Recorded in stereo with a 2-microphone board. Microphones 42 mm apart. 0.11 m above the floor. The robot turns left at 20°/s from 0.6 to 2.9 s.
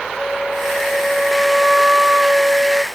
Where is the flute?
10° left; by 2.8 s 35° right.